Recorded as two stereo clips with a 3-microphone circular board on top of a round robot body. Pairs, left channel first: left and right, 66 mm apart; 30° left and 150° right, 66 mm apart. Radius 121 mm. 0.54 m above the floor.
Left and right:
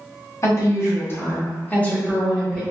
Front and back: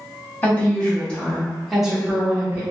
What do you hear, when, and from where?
0.4 s a woman speaking: 85° left, 1.5 m; by 2.6 s 170° left, 1.3 m